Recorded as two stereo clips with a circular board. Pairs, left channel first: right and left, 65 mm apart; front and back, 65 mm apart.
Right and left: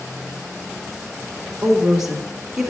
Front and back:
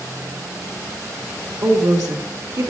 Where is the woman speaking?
170° left, 2.5 m.